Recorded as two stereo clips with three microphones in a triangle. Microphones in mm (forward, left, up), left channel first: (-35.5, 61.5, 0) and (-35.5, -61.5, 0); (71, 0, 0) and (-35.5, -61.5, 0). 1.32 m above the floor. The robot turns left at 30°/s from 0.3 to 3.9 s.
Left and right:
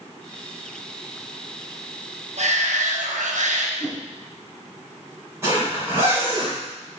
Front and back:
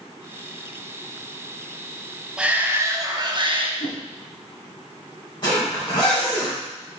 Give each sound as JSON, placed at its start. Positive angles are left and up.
{"t": 2.4, "sound": "a shout", "azimuth_deg": -70, "distance_m": 1.2}
{"t": 3.8, "sound": "a whoosh", "azimuth_deg": 30, "distance_m": 1.7}
{"t": 5.4, "sound": "a zipper", "azimuth_deg": -20, "distance_m": 4.0}